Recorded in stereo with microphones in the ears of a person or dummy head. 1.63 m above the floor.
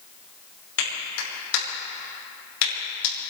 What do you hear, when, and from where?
0.8 s a clap: 80° left, 5.5 m